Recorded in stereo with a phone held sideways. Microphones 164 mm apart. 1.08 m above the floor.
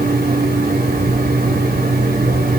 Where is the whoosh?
I don't hear a whoosh.